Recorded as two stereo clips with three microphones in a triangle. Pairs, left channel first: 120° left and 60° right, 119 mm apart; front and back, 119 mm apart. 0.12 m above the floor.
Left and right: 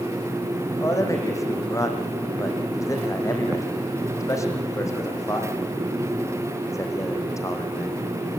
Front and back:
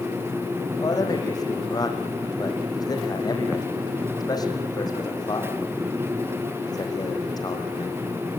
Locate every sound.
0.8 s a man speaking: 55° left, 5.5 m